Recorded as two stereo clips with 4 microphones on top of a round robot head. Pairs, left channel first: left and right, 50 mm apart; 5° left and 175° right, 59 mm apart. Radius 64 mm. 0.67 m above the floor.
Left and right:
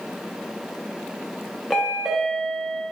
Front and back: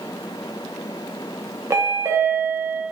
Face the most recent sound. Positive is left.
turn(degrees=-175)